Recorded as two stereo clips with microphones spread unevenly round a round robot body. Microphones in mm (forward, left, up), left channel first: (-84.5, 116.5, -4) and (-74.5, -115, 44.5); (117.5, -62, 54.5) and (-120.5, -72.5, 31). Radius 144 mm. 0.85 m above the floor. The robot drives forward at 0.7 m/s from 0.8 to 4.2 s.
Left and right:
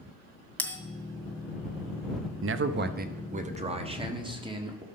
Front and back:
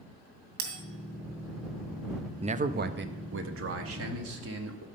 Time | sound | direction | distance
0.6 | a bell | straight behind | 2.5 m
2.4 | a man speaking | 120° right | 0.8 m